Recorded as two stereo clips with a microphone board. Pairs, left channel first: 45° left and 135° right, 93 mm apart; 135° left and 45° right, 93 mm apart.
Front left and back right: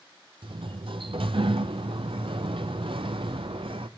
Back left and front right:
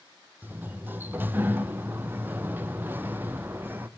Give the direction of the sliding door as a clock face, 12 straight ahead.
4 o'clock.